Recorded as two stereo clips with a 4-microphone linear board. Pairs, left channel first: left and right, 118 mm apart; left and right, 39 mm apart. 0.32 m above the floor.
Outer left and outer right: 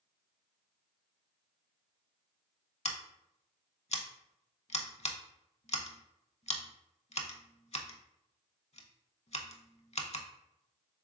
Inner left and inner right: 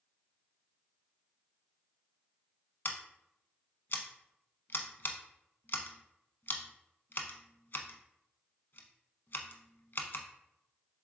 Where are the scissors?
60° left (ahead or behind), 0.5 m.